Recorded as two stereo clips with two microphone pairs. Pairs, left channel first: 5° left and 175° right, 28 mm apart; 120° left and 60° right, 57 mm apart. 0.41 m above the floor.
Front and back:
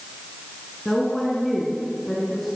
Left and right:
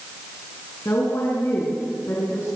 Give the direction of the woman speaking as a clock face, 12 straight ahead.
9 o'clock.